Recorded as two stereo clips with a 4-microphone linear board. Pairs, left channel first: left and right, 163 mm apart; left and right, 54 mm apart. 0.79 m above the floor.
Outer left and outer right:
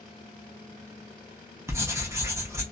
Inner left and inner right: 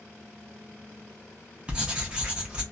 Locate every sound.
1.7 s writing: 15° right (ahead or behind), 0.8 m